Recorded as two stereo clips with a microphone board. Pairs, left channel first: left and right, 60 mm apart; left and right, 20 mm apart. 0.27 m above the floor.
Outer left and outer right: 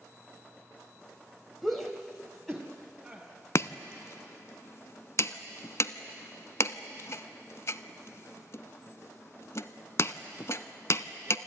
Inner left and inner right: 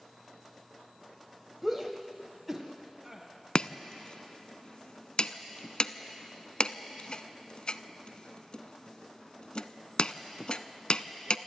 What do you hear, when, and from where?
1.6 s a shout: centre (ahead or behind), 1.2 m
3.5 s chopping: 55° left (ahead or behind), 0.5 m